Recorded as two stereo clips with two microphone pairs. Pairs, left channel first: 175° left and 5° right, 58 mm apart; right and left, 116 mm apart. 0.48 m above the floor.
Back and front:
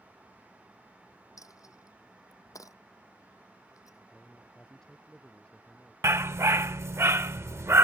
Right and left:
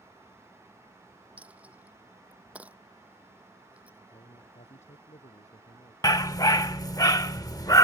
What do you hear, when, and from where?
1.4 s a dropped coin: 170° left
4.1 s a man speaking: 105° right
6.0 s a dog barking: 35° right